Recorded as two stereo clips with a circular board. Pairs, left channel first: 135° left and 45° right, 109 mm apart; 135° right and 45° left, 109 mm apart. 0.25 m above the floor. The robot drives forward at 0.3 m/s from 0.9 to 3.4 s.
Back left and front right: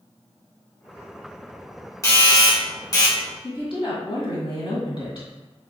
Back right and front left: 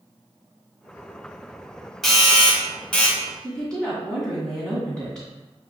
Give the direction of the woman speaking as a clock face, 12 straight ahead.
7 o'clock.